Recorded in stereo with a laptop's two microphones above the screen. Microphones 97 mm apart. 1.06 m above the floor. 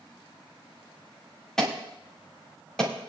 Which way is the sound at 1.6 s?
5° left (ahead or behind).